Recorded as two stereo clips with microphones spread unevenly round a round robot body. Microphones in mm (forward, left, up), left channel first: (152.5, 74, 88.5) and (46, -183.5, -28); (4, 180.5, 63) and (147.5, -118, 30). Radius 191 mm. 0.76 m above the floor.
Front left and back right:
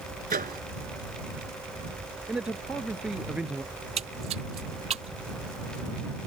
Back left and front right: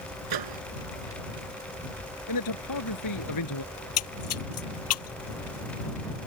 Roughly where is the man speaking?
Behind.